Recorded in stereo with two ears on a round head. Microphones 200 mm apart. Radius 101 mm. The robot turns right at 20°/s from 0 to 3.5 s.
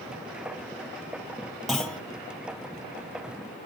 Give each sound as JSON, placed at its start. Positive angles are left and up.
{"t": 1.7, "sound": "a clunk", "side_deg": 0, "distance_m": 0.7}